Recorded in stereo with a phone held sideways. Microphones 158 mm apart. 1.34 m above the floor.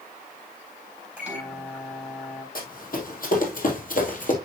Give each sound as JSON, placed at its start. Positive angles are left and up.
{"t": 1.2, "sound": "a microwave", "side_deg": -5, "distance_m": 3.5}
{"t": 2.5, "sound": "running footsteps", "side_deg": 65, "distance_m": 3.5}